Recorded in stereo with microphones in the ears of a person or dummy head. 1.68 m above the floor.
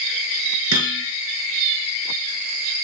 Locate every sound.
0.7 s hammering: 80° right, 9.5 m